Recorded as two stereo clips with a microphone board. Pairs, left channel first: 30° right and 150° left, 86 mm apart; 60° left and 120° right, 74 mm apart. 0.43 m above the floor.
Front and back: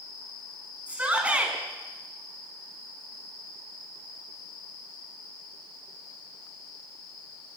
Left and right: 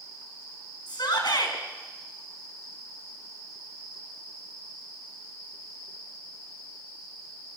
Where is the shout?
75° left, 5 m.